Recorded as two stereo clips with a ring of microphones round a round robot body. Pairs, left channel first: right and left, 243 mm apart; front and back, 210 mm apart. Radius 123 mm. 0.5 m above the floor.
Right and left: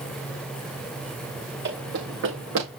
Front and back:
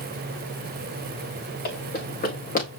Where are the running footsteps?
45° left, 5.5 m; by 2.7 s 50° left, 5 m.